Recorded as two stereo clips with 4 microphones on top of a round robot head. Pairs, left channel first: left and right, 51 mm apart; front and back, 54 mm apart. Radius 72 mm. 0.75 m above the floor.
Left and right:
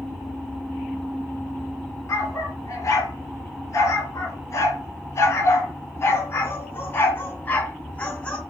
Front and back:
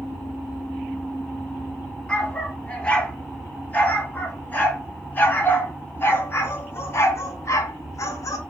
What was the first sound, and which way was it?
A dog barking, 65° left.